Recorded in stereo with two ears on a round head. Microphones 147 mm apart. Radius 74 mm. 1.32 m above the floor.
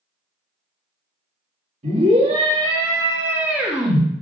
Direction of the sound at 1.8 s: 45° right (ahead or behind).